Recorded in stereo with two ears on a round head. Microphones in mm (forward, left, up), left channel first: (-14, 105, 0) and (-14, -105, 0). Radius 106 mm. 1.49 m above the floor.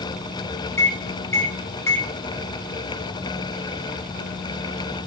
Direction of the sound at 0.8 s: 10° left (ahead or behind).